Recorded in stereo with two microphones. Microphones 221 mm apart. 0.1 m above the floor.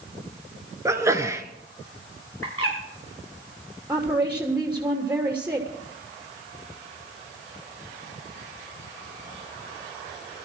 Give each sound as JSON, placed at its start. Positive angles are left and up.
{"t": 0.8, "sound": "a sneeze", "side_deg": -15, "distance_m": 1.5}
{"t": 2.4, "sound": "a bird", "side_deg": 85, "distance_m": 6.0}
{"t": 3.9, "sound": "a woman speaking", "side_deg": -5, "distance_m": 2.5}